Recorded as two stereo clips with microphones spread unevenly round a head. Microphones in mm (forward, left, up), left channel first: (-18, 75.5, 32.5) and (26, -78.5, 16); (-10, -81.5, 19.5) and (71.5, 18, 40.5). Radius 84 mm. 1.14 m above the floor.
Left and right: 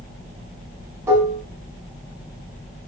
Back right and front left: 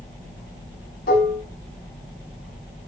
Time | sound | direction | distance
1.1 | dishes clattering | 150° right | 6 m